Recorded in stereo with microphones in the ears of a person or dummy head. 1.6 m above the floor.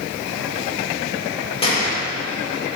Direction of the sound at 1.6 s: 30° left (ahead or behind).